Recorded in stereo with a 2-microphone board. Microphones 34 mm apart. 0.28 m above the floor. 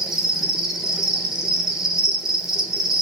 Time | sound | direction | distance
0.0 | an insect | 15° right (ahead or behind) | 1.1 m